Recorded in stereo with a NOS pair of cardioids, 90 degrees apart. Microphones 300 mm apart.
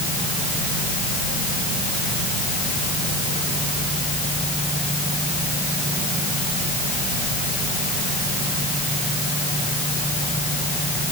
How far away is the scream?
I don't hear a scream.